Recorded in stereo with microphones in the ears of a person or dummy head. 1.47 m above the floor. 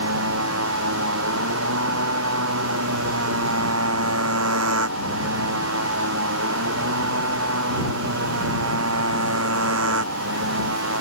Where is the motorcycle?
85° right; by 11.0 s 75° right (ahead or behind).